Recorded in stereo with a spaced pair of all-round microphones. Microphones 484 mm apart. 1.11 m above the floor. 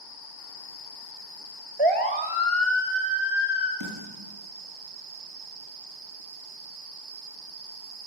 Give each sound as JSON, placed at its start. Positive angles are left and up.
{"t": 1.8, "sound": "a siren", "side_deg": -60, "distance_m": 6.5}
{"t": 3.8, "sound": "a snare drum", "side_deg": -40, "distance_m": 9.5}